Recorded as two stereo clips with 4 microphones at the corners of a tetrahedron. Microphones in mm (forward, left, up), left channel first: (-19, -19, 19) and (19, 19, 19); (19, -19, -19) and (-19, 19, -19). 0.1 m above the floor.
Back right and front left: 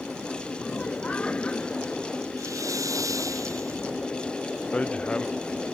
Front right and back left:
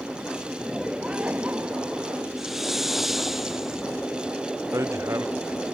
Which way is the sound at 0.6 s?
145° right.